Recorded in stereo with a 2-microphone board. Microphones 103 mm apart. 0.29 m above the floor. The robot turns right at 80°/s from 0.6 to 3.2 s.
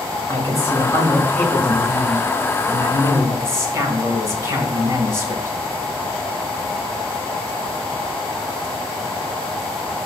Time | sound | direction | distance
0.3 | a man speaking | 30° left (ahead or behind) | 1.5 m